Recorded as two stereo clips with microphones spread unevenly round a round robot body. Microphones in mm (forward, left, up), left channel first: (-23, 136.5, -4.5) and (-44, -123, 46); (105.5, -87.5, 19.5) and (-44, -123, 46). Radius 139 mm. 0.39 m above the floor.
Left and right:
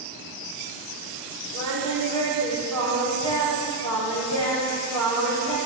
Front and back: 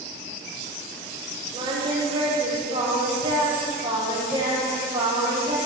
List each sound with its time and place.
1.5 s singing: 110° right, 7 m